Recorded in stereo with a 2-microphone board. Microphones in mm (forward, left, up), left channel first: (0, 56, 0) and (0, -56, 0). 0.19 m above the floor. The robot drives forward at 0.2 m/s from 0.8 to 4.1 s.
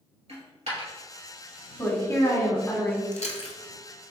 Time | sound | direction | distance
0.3 | a dropped coin | 70° right (ahead or behind) | 1.9 m
1.8 | a woman speaking | 25° left (ahead or behind) | 1.2 m
3.1 | chewing | 80° left | 0.6 m